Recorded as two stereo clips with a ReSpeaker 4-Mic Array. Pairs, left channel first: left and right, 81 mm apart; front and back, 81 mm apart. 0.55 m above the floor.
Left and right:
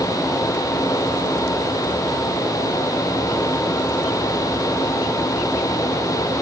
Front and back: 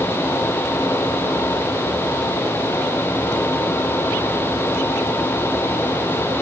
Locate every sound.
Only background noise.